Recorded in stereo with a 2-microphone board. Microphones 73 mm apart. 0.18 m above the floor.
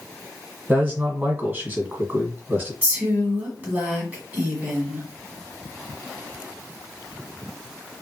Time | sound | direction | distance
0.7 | a man speaking | 25° right (ahead or behind) | 1.1 m
2.8 | a woman speaking | 25° right (ahead or behind) | 1.5 m